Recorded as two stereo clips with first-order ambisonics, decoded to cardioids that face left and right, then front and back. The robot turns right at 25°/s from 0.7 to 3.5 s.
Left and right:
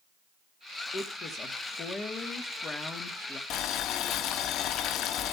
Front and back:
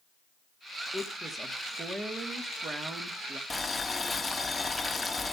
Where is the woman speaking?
90° left, 1.2 m; by 3.4 s 155° left, 1.2 m.